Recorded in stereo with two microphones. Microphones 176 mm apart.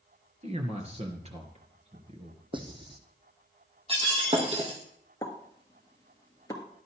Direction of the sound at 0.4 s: 35° right (ahead or behind).